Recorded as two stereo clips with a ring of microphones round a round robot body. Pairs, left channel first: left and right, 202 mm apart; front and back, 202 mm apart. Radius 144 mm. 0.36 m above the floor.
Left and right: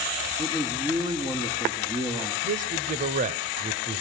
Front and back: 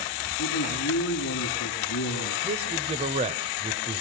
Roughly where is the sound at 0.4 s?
Ahead.